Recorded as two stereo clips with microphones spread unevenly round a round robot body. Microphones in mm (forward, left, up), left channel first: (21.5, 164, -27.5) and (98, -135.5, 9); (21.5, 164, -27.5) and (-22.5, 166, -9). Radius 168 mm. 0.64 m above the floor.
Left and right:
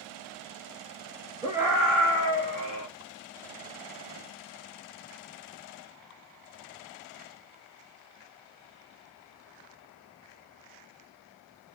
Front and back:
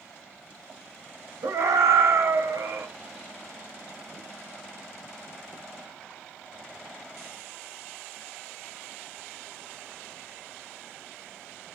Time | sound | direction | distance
1.4 | a scream | 155° right | 1.2 m